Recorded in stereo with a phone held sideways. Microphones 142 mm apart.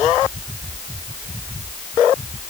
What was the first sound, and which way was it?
Only background noise.